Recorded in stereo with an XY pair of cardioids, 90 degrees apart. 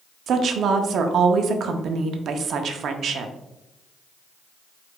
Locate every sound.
0.3 s a woman speaking: 70° right, 0.5 m